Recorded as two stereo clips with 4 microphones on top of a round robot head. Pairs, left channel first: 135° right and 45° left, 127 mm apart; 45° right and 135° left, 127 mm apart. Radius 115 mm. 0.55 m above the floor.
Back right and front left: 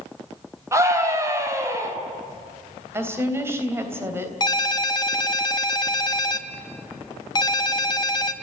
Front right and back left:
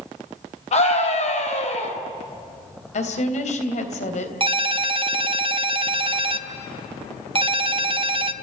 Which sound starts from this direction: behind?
A ringtone, at 4.4 s.